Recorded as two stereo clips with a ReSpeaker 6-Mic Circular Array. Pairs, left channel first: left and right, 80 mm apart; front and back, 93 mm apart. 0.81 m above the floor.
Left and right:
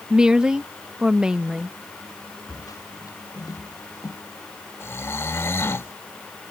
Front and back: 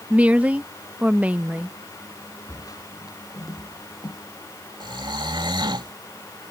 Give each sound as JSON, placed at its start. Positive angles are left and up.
{"t": 0.1, "sound": "a woman speaking", "azimuth_deg": -140}
{"t": 2.5, "sound": "footsteps", "azimuth_deg": 50}
{"t": 4.8, "sound": "snoring", "azimuth_deg": 145}